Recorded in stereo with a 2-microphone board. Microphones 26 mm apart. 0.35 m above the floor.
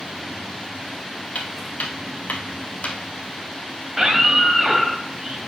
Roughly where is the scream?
Centre.